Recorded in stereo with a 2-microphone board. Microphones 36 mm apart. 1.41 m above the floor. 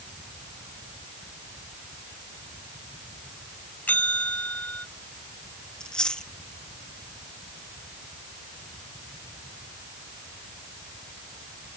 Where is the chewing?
25° left (ahead or behind).